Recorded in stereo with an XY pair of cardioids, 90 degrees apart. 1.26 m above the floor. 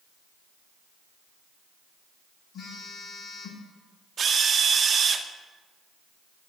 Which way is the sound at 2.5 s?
65° left.